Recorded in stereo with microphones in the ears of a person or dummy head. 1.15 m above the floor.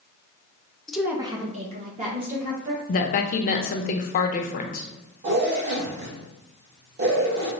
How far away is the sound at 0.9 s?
About 0.6 m.